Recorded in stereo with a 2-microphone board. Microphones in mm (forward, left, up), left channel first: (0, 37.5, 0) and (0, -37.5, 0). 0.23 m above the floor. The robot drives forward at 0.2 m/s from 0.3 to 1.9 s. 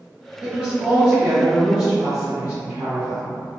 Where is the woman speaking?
15° right (ahead or behind), 1.3 m.